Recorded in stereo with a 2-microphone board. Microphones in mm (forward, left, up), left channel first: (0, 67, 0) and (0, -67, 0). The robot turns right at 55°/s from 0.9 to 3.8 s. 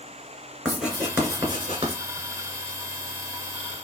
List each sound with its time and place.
0.7 s writing: 5° right (ahead or behind), 3 m; by 2.0 s 55° right (ahead or behind), 3 m